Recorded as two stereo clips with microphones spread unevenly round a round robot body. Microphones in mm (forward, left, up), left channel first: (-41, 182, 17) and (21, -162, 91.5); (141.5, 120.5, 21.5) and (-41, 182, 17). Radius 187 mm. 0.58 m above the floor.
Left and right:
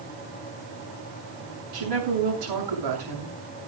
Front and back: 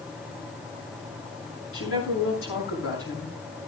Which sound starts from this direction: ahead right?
A woman speaking, at 1.7 s.